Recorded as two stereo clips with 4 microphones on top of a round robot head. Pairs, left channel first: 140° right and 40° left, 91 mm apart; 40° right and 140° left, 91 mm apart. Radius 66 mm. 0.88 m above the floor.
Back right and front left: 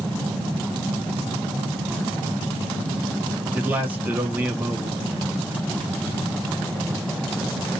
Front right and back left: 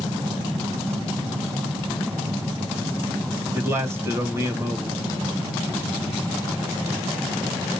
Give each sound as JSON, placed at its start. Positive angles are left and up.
{"t": 3.5, "sound": "a man speaking", "azimuth_deg": 100, "distance_m": 1.1}